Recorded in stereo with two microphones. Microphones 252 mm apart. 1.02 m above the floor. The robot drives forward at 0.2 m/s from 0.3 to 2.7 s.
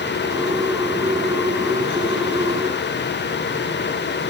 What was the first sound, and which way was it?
Only background noise.